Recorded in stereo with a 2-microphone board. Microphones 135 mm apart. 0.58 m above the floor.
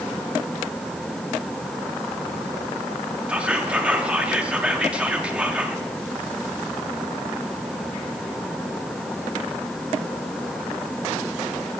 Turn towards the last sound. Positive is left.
turn(degrees=-10)  # may be behind; listen again after turning